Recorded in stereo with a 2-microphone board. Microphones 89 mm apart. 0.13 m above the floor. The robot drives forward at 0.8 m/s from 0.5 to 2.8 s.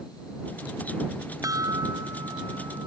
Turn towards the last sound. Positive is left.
turn(degrees=-40)  # may be behind; listen again after turning